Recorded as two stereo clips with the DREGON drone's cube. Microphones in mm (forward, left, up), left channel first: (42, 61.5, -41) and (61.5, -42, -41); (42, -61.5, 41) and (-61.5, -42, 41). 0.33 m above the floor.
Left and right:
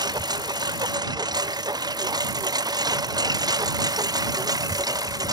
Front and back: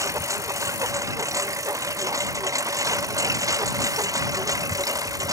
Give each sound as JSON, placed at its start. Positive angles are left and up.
{"t": 0.0, "sound": "a lawn mower", "azimuth_deg": -130}